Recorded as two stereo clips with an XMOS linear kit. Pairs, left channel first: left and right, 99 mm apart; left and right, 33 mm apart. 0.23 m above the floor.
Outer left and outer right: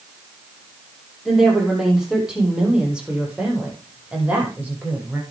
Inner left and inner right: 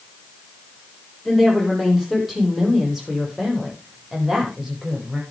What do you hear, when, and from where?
1.2 s a woman speaking: 5° right (ahead or behind), 8 m; by 5.2 s 15° right (ahead or behind), 9.5 m